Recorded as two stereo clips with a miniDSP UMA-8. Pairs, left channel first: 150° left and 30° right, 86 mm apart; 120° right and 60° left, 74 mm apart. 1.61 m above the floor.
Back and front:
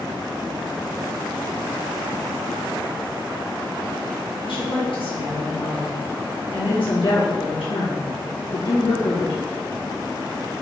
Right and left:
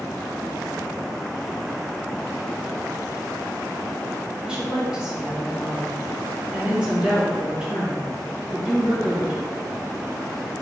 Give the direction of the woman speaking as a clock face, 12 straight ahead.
7 o'clock.